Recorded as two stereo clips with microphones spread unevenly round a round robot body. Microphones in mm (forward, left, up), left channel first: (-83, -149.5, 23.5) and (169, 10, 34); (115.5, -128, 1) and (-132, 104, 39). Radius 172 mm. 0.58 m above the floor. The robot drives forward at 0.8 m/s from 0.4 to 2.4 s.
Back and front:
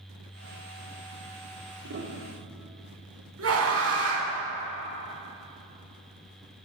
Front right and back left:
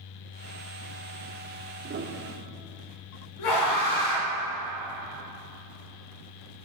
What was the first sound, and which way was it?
A piano, 75° left.